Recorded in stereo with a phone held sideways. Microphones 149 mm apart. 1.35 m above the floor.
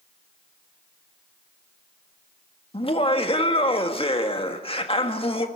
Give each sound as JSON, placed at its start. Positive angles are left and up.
{"t": 2.7, "sound": "laughter", "side_deg": 40, "distance_m": 1.7}